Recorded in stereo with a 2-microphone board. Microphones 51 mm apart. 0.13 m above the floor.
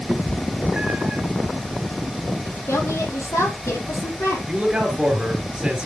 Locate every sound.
0.1 s a cat meowing: 25° right (ahead or behind), 1.3 m
2.5 s a woman speaking: 65° left (ahead or behind), 3.5 m
4.5 s a man speaking: 20° right (ahead or behind), 2.5 m